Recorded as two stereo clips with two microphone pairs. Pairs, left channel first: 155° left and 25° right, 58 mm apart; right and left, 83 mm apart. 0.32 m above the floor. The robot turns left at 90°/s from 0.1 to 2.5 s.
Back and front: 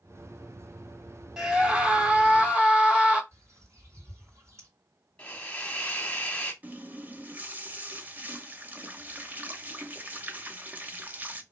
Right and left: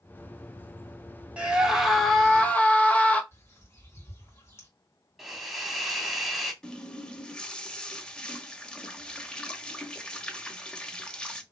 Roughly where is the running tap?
Ahead.